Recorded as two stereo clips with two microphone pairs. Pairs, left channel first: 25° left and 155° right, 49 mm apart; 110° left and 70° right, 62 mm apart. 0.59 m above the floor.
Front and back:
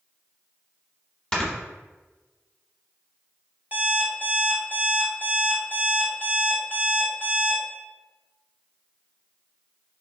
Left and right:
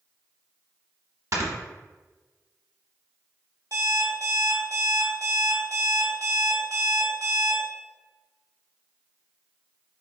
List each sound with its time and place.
1.3 s snoring: 45° right, 1.0 m
3.7 s an alarm clock: 90° right, 1.3 m